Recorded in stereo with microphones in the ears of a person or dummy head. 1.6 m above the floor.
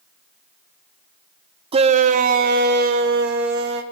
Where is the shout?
35° right (ahead or behind), 0.6 m; by 3.8 s 65° right (ahead or behind), 1.6 m.